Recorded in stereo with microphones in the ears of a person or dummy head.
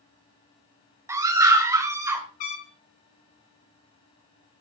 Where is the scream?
10° right (ahead or behind), 2 m.